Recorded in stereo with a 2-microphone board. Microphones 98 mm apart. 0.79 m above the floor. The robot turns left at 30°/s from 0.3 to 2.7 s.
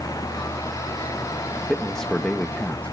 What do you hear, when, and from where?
1.7 s a man speaking: 5° left (ahead or behind), 0.7 m; by 2.9 s 15° left (ahead or behind), 0.7 m